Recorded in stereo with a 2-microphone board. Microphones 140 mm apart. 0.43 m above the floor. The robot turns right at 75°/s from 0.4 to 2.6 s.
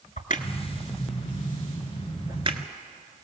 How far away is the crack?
About 1.3 m.